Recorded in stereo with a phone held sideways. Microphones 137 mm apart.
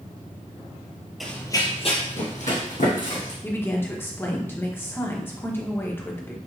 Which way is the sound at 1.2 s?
Centre (ahead or behind).